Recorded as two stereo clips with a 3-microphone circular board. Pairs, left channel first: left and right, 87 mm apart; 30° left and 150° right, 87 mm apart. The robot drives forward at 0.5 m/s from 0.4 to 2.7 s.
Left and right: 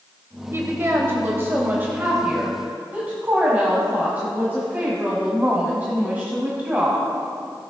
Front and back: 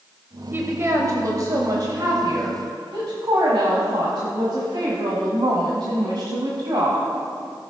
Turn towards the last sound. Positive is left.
turn(degrees=-155)